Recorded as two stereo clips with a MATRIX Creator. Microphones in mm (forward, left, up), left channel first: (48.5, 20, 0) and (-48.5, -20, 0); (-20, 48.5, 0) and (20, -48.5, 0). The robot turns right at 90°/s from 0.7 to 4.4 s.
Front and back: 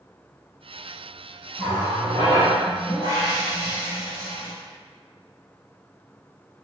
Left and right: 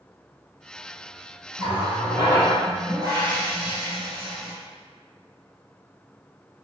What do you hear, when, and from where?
1.6 s a running tap: 120° left, 1.5 m; by 4.5 s 15° left, 1.5 m